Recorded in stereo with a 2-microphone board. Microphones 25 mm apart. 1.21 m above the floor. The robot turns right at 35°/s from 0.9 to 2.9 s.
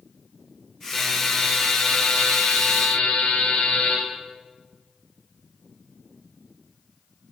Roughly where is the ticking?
I don't hear ticking.